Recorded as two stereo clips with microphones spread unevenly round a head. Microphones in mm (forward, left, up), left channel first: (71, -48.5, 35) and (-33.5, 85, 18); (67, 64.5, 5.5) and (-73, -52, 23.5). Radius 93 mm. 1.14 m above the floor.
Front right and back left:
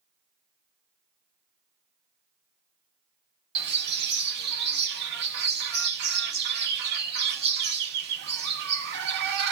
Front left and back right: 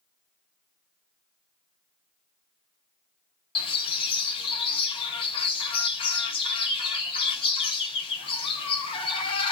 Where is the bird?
105° left, 1.0 m.